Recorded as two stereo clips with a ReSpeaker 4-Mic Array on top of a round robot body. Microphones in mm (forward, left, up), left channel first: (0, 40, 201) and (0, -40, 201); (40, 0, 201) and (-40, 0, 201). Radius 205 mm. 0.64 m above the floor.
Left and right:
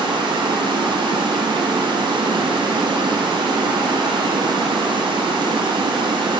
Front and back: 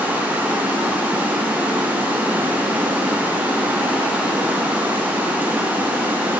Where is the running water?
110° right, 0.8 m.